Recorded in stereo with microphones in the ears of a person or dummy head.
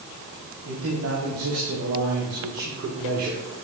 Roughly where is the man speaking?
Right.